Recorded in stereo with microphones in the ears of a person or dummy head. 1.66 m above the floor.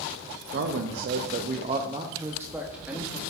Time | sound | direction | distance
0.5 | a man speaking | 50° right (ahead or behind) | 0.6 m